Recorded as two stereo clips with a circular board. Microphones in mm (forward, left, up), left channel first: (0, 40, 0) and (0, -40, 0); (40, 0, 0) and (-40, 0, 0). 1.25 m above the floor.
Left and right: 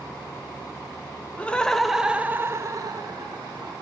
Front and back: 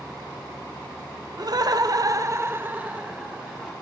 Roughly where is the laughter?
Behind.